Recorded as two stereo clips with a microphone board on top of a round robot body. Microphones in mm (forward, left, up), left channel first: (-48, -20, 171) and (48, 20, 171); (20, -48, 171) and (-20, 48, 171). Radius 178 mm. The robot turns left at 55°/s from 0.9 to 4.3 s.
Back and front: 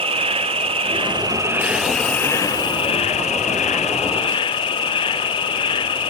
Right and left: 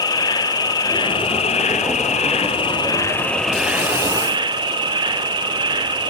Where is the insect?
15° right, 0.7 m; by 6.1 s 160° left, 0.7 m.